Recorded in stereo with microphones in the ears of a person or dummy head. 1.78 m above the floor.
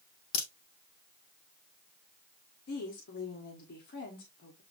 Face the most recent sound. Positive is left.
turn(degrees=55)  # may be behind; listen again after turning